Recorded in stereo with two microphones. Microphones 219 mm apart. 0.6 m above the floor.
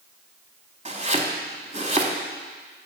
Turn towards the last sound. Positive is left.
turn(degrees=-30)  # may be behind; listen again after turning